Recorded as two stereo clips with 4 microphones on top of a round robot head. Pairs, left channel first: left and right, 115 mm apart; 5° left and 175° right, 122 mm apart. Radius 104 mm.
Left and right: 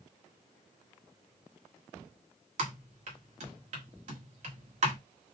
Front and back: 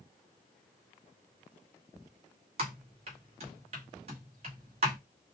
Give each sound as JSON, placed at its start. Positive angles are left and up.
{"t": 2.6, "sound": "typing on a keyboard", "azimuth_deg": -125, "distance_m": 1.4}